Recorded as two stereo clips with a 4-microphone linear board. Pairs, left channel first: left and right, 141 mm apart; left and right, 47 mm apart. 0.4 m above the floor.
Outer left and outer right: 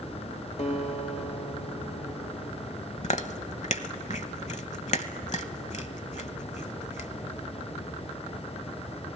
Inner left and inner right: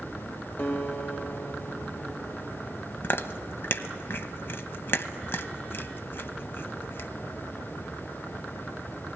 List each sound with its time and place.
0.6 s a guitar: 55° left (ahead or behind), 1.6 m
3.0 s chewing: 55° left (ahead or behind), 0.9 m